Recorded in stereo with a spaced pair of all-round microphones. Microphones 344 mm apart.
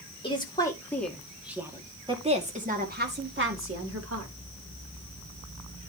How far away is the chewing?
I don't hear chewing.